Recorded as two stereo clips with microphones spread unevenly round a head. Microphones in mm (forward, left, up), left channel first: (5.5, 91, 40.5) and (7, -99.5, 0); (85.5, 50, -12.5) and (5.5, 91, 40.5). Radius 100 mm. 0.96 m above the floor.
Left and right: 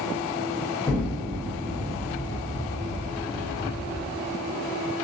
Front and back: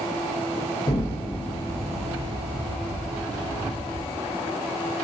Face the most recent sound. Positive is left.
turn(degrees=10)